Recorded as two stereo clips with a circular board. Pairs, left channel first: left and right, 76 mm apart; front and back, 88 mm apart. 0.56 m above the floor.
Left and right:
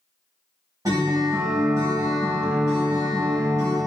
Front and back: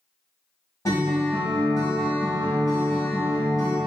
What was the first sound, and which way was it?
A guitar, 50° right.